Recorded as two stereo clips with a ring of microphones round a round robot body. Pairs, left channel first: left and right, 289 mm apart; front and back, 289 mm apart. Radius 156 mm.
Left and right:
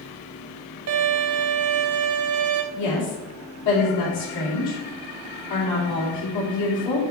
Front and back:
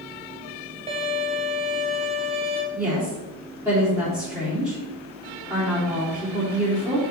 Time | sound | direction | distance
0.9 | a violin | 115° right | 0.7 m
2.7 | a woman speaking | 100° left | 3 m